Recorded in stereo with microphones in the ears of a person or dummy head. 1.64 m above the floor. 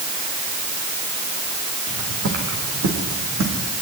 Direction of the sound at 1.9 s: 65° right (ahead or behind).